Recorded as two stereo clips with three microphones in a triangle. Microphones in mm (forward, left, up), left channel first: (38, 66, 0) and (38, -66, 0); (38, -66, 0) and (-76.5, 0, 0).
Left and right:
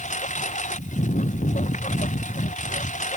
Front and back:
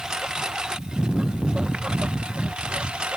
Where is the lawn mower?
65° left.